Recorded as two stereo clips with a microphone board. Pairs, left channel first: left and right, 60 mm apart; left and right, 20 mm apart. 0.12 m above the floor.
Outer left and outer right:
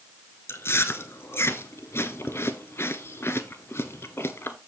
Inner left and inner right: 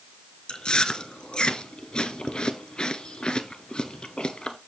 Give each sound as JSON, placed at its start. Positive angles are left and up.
{"t": 0.5, "sound": "chewing", "side_deg": 45, "distance_m": 0.9}